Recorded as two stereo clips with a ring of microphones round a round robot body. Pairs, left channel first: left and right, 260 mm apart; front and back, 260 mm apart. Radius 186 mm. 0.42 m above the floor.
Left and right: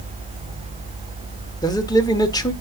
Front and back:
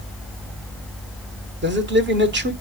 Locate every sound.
1.6 s a man speaking: 160° left, 1.4 m